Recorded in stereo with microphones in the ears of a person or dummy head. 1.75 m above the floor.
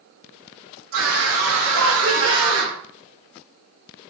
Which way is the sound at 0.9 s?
75° right (ahead or behind).